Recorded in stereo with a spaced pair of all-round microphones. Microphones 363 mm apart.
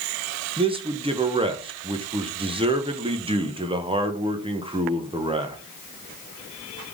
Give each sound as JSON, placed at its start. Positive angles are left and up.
{"t": 0.6, "sound": "a man speaking", "side_deg": -15, "distance_m": 0.7}